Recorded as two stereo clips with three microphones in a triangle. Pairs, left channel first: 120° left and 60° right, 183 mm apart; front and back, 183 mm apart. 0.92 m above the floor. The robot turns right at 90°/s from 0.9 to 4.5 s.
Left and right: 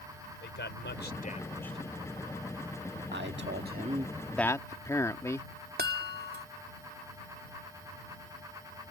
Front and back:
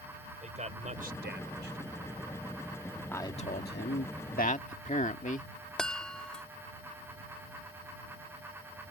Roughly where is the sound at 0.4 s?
Behind left.